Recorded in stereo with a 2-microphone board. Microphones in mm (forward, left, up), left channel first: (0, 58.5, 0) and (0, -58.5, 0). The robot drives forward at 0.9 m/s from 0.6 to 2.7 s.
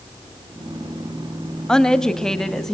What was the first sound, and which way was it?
A woman speaking, 5° left (ahead or behind).